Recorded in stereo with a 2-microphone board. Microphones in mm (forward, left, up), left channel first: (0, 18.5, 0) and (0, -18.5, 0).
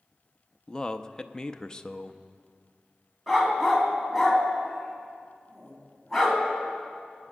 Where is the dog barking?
Centre (ahead or behind), 2.5 m.